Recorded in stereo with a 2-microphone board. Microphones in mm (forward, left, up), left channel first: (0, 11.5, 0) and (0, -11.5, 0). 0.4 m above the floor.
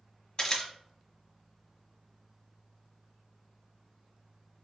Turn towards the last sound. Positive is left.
turn(degrees=35)  # may be behind; listen again after turning